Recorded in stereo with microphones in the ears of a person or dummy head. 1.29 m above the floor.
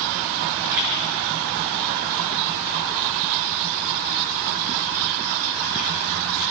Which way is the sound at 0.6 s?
10° right (ahead or behind).